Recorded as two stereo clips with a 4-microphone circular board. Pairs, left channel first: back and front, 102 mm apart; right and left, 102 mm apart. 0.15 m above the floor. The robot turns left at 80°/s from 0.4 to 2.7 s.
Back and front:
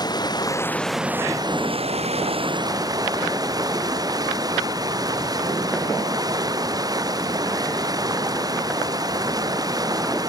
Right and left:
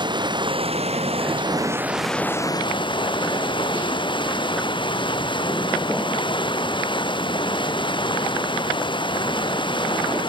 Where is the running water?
130° left; by 10.3 s 50° right.